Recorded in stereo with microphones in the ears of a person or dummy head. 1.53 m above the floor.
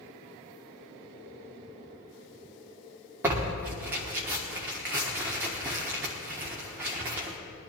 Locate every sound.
3.2 s tearing paper: 15° right (ahead or behind), 1.2 m